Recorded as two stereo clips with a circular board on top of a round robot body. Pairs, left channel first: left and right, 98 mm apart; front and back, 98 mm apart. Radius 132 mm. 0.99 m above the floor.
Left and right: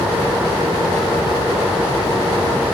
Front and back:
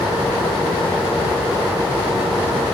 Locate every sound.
Only background noise.